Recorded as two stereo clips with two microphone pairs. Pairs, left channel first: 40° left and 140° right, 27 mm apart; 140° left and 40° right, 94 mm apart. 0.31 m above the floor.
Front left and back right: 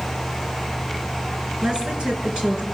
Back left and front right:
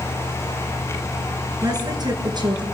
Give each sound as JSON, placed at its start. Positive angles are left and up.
{"t": 1.6, "sound": "a woman speaking", "azimuth_deg": -85, "distance_m": 5.0}